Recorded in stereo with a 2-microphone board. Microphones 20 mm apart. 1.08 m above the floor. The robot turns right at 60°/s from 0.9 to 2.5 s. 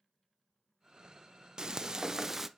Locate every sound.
1.6 s frying: 85° right, 0.5 m; by 2.5 s 30° right, 0.5 m